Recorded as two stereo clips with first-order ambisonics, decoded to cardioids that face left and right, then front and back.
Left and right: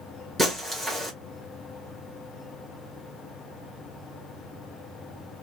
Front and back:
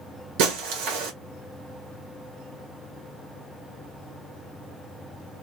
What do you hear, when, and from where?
0.4 s breaking glass: 170° right, 1.6 m